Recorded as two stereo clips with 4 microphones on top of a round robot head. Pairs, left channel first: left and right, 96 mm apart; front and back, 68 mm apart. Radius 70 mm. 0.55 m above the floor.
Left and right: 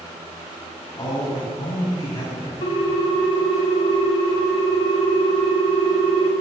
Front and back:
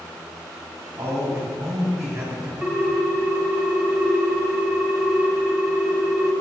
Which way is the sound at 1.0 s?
135° left.